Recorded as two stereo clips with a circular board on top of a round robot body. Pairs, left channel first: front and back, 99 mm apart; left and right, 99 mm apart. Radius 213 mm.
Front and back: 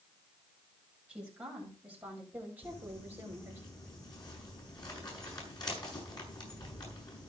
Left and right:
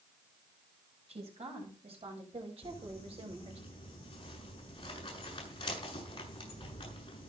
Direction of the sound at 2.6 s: 50° left.